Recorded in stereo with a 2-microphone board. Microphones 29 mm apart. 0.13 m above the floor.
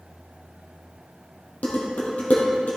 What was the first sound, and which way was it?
Dishes clattering, 65° left (ahead or behind).